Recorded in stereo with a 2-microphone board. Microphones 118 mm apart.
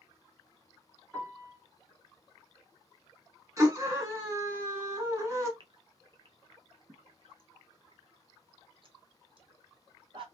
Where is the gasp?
50° right (ahead or behind), 0.6 m.